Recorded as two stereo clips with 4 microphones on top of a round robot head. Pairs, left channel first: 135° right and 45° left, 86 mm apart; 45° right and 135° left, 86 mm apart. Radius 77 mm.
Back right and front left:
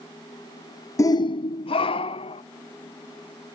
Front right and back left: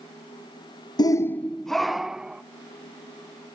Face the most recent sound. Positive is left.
turn(degrees=-145)